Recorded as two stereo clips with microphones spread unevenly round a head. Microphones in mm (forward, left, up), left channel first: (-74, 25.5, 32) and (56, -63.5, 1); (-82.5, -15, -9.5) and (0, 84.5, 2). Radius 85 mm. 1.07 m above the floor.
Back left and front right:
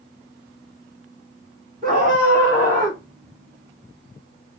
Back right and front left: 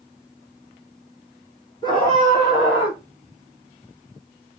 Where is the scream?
65° right, 2.5 m; by 3.0 s 70° right, 3.5 m.